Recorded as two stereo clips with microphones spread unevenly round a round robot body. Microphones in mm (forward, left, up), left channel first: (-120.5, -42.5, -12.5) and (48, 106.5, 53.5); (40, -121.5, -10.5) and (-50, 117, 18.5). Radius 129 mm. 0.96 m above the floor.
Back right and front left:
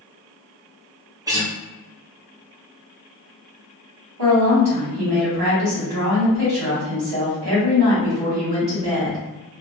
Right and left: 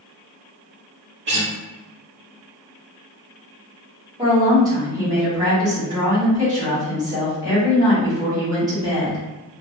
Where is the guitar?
130° left, 1.0 m.